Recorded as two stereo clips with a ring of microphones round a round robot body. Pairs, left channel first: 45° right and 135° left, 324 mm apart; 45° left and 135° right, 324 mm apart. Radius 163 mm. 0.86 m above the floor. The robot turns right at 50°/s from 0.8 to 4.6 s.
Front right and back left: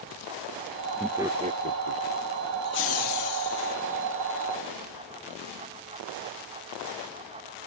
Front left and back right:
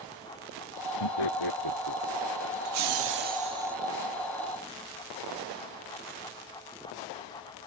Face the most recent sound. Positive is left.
turn(degrees=-5)